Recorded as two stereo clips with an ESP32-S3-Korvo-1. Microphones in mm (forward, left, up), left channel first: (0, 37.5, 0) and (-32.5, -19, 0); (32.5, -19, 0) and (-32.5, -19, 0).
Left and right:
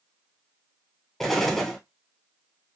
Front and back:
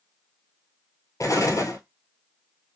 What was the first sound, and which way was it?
An explosion, 20° right.